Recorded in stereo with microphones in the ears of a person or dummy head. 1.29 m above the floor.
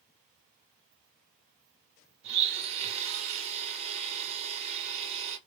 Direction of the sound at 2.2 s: 40° right (ahead or behind).